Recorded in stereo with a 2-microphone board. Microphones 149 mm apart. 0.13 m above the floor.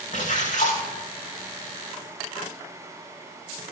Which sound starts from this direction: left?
A splash, at 0.1 s.